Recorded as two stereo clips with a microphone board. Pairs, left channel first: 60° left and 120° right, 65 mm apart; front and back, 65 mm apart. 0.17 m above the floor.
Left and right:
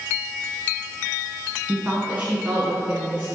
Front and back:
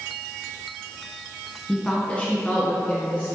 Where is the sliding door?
I don't hear a sliding door.